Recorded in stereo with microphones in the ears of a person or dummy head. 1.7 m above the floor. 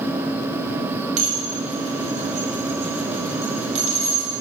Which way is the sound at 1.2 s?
40° right (ahead or behind).